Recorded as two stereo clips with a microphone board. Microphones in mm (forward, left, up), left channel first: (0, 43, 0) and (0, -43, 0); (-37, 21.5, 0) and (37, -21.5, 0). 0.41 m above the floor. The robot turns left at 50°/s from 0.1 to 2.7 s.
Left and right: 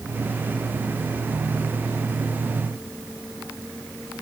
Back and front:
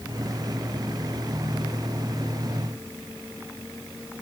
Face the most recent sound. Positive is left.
No sound to turn to.